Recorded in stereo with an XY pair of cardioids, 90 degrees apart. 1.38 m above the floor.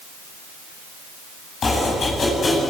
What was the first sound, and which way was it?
Chopping, 45° left.